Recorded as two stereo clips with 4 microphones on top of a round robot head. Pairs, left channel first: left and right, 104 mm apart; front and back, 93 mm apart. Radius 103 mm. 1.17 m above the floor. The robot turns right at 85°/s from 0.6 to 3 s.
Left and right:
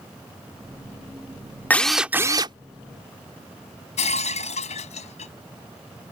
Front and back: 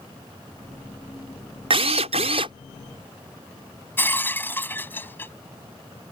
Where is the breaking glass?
65° left.